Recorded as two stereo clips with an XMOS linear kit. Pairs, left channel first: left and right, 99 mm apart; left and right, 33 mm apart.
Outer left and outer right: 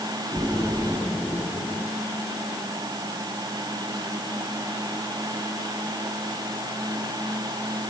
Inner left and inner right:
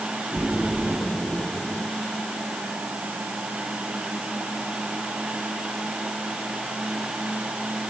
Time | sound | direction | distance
0.3 | a splash | 15° right (ahead or behind) | 10 m